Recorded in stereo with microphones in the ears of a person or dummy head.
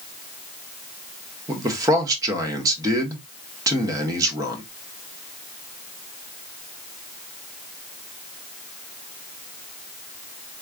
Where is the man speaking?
20° right (ahead or behind), 1.1 m.